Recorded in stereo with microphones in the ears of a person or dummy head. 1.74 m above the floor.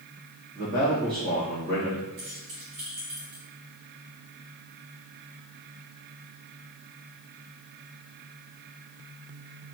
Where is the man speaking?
55° right (ahead or behind), 1.9 m.